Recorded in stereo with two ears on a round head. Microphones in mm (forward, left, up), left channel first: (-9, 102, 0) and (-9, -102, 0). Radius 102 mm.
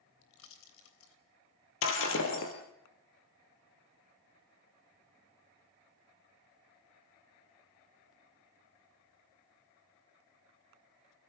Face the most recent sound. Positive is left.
turn(degrees=65)  # may be behind; listen again after turning